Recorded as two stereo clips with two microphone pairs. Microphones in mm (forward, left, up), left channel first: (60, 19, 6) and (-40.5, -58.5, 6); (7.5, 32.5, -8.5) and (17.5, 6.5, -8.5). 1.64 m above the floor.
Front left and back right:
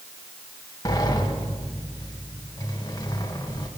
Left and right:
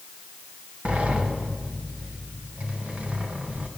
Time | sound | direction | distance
0.8 | a sliding door | 20° right | 2.5 m